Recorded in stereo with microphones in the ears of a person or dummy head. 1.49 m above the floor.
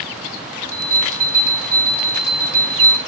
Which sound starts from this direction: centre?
A bell, at 0.7 s.